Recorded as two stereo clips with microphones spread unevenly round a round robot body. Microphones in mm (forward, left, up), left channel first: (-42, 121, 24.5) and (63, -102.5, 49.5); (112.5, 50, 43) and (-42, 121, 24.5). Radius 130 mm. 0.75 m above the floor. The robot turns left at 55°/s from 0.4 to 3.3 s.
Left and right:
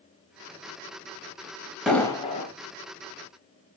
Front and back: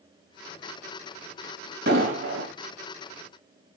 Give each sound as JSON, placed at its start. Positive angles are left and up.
{"t": 1.9, "sound": "an explosion", "azimuth_deg": -150, "distance_m": 0.9}